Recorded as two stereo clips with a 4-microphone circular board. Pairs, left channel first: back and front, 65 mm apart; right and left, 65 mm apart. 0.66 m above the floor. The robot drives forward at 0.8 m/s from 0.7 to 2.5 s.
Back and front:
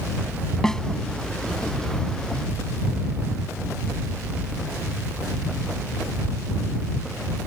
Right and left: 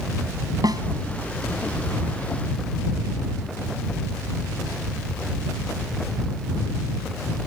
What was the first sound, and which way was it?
A snare drum, 100° left.